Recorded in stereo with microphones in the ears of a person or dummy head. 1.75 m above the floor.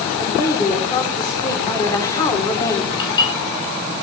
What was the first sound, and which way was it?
A woman speaking, 15° left (ahead or behind).